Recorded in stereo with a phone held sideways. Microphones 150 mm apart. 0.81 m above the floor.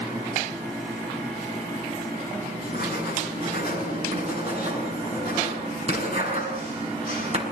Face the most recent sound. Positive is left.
turn(degrees=-45)  # may be behind; listen again after turning